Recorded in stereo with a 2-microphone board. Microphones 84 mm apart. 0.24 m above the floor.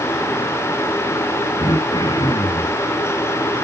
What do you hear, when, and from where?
1.6 s throat clearing: 55° left (ahead or behind), 9.5 m